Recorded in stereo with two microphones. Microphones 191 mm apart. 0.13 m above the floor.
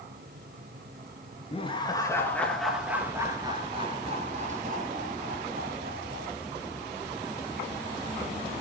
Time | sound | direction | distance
1.5 | laughter | 30° left (ahead or behind) | 2.5 m